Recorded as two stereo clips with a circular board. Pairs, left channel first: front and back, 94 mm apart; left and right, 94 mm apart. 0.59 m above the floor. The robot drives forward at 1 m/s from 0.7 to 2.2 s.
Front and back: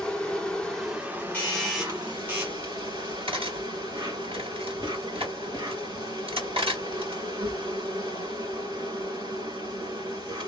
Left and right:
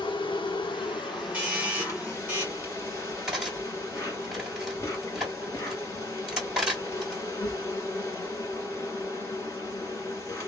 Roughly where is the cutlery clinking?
Behind.